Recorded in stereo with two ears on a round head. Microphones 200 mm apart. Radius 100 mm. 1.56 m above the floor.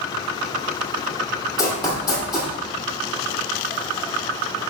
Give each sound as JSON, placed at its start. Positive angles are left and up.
{"t": 1.6, "sound": "running footsteps", "side_deg": 20, "distance_m": 3.0}